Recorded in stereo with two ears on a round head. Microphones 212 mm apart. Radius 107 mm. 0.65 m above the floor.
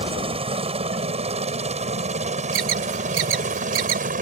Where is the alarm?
60° right (ahead or behind).